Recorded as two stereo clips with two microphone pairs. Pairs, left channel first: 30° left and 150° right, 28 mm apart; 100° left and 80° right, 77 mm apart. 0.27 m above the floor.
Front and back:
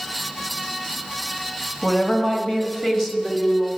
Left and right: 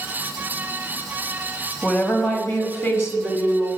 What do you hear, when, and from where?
1.8 s a woman speaking: 50° left, 1.5 m; by 3.7 s 115° left, 1.6 m